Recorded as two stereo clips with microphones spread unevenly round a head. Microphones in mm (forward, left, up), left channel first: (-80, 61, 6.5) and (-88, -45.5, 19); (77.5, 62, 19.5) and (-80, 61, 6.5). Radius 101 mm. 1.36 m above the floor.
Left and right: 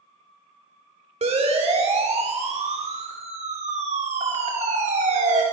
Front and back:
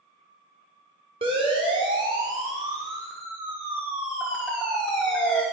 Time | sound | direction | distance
1.2 | a siren | 115° right | 5.5 m